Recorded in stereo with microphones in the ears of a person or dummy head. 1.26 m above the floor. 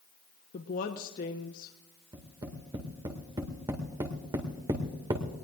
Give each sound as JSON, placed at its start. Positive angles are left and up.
{"t": 0.5, "sound": "a woman speaking", "side_deg": 45, "distance_m": 1.0}
{"t": 2.1, "sound": "tapping", "side_deg": -25, "distance_m": 2.0}